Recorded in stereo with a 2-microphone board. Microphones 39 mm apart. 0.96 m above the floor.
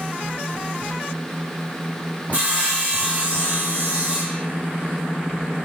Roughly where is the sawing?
Right.